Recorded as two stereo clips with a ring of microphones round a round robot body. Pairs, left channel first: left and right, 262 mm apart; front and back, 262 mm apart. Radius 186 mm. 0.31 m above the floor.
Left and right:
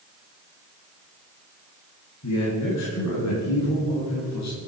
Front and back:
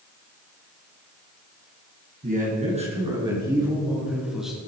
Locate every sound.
2.2 s a man speaking: 125° left, 4 m; by 4.6 s 90° left, 4.5 m